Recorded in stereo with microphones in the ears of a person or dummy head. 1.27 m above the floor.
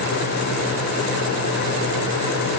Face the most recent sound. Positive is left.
No sound to turn to.